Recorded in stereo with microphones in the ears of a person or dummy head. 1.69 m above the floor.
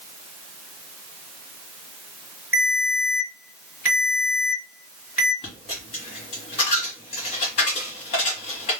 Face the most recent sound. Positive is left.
turn(degrees=20)  # may be behind; listen again after turning